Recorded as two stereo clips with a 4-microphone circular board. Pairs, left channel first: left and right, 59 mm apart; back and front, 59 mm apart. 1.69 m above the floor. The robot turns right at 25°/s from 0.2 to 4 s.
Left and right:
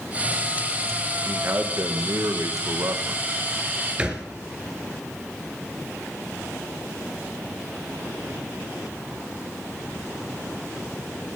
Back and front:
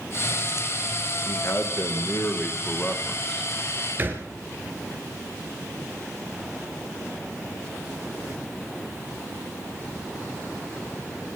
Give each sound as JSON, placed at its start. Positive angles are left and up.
{"t": 1.2, "sound": "a man speaking", "azimuth_deg": -140, "distance_m": 1.7}
{"t": 4.0, "sound": "a thud", "azimuth_deg": -25, "distance_m": 2.0}